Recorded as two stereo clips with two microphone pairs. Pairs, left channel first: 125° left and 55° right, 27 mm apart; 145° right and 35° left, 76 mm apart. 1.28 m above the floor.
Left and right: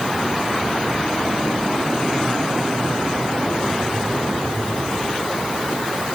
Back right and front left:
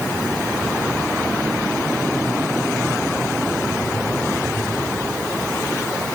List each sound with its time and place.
Only background noise.